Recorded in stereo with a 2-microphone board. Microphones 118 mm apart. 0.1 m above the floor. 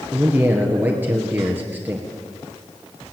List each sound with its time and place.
0.1 s a man speaking: 15° right (ahead or behind), 2.5 m